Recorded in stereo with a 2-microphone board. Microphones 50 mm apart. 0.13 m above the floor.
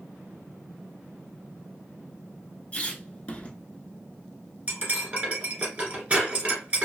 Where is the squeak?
25° left (ahead or behind), 0.5 m.